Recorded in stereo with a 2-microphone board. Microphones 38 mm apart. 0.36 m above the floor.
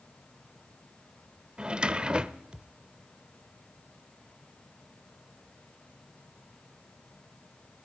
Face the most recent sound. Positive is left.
turn(degrees=-25)  # may be behind; listen again after turning